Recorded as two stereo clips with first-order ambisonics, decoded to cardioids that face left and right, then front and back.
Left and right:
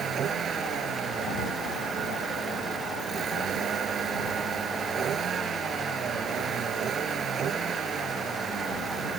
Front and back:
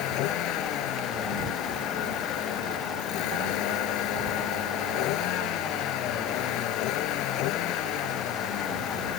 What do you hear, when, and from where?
0.0 s a vehicle: 30° right